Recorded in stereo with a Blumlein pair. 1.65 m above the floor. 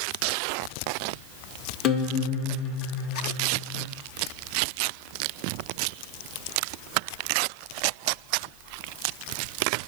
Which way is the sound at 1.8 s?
30° left.